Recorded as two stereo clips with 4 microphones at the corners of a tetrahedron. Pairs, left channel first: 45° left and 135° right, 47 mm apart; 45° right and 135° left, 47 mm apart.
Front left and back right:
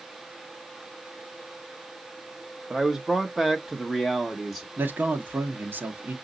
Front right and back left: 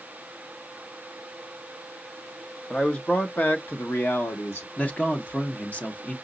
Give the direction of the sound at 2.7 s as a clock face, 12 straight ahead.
2 o'clock.